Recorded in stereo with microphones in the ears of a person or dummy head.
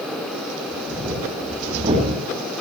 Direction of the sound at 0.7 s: 30° right (ahead or behind).